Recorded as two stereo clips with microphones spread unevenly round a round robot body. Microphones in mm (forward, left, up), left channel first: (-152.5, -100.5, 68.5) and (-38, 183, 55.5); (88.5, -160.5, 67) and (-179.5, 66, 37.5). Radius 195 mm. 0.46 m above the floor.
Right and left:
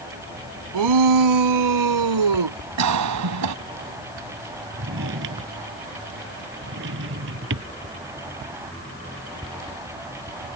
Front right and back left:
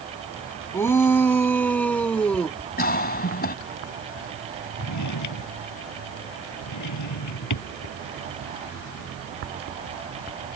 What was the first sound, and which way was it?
A shout, 45° left.